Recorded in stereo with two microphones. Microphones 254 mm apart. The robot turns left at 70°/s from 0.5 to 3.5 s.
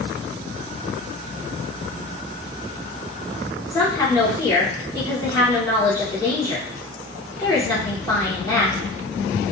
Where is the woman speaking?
15° left (ahead or behind), 0.9 m.